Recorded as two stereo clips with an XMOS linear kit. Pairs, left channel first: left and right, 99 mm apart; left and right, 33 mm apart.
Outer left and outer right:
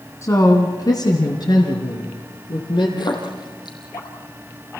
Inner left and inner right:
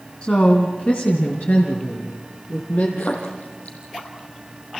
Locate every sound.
0.2 s a woman speaking: 30° left (ahead or behind), 2 m; by 2.9 s 55° left (ahead or behind), 5 m
3.0 s a splash: 50° left (ahead or behind), 4.5 m